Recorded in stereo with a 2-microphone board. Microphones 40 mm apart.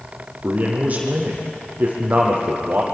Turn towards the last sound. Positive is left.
turn(degrees=-40)  # may be behind; listen again after turning